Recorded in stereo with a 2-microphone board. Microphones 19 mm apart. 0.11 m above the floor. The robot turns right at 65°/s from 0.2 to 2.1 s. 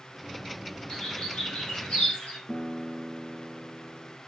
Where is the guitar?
35° left (ahead or behind), 0.7 m.